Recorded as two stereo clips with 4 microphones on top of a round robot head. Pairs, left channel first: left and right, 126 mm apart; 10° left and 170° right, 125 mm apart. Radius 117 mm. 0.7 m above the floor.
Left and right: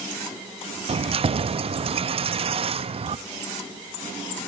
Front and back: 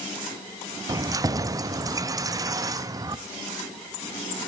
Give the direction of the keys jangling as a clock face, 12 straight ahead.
4 o'clock.